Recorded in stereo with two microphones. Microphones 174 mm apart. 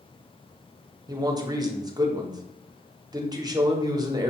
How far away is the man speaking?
About 0.7 m.